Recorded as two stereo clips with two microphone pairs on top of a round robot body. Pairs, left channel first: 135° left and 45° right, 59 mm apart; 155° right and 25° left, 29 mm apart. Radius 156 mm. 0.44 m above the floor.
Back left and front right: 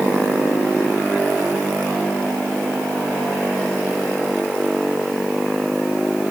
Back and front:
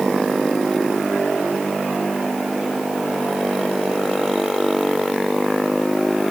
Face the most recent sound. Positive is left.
No sound to turn to.